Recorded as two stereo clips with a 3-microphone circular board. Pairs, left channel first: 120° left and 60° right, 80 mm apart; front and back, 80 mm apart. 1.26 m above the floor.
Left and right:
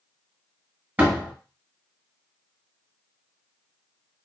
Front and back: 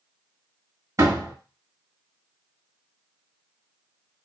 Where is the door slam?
130° right, 1.1 m.